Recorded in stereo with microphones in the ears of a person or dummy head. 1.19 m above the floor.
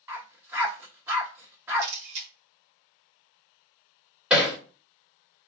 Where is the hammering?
5° right (ahead or behind), 1.4 m.